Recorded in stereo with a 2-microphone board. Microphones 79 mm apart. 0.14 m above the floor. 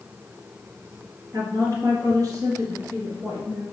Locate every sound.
1.3 s a woman speaking: 45° right (ahead or behind), 2.5 m; by 3.6 s 55° right (ahead or behind), 3.5 m